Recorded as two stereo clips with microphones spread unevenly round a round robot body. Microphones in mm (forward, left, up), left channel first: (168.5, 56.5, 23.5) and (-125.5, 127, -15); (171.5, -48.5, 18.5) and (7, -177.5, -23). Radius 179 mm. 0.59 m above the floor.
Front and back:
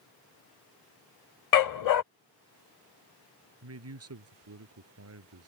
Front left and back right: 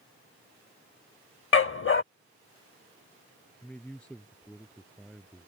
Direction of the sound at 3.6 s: 125° left.